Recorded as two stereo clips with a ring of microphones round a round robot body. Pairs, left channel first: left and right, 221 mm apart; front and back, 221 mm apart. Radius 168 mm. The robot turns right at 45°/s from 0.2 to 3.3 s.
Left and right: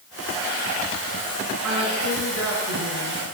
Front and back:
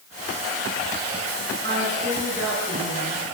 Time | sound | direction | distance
1.6 | a woman speaking | 125° right | 6.5 m